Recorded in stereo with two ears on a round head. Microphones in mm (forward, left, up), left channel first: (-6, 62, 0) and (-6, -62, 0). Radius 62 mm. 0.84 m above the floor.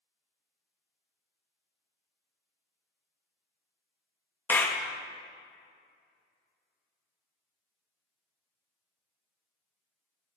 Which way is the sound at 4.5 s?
15° left (ahead or behind).